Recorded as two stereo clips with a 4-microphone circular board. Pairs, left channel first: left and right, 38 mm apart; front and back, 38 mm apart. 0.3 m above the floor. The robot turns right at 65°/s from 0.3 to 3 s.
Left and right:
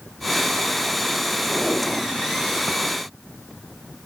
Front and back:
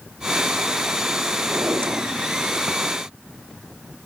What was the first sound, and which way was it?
A drawer, 150° left.